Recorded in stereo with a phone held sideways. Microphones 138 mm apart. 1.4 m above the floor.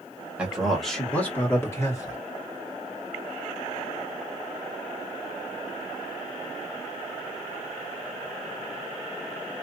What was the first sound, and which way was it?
A man speaking, 10° right (ahead or behind).